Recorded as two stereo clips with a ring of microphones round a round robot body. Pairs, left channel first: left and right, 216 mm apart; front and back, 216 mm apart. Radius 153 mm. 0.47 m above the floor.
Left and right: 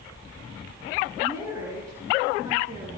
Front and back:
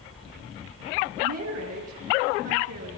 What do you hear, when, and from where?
1.2 s a woman speaking: 170° right, 8 m; by 2.9 s 165° right, 9 m